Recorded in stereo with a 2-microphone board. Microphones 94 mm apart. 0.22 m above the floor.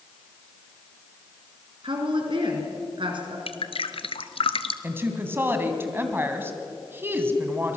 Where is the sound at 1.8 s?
60° right (ahead or behind), 3.5 m.